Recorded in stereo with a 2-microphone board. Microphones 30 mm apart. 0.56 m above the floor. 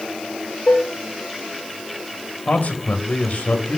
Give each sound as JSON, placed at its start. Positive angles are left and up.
{"t": 0.7, "sound": "dishes clattering", "side_deg": 85, "distance_m": 7.0}
{"t": 2.5, "sound": "a man speaking", "side_deg": 60, "distance_m": 2.5}